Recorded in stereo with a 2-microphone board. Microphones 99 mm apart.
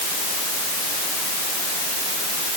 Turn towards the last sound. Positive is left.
No sound to turn to.